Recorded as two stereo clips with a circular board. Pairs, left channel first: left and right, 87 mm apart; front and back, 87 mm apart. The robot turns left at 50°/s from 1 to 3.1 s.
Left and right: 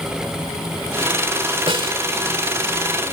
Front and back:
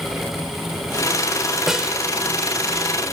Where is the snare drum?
95° right; by 2.0 s 110° right.